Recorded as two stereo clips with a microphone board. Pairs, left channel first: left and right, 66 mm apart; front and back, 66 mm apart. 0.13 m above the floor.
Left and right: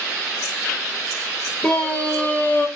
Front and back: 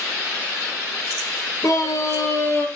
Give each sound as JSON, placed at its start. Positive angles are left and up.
{"t": 1.6, "sound": "a scream", "azimuth_deg": 15, "distance_m": 3.0}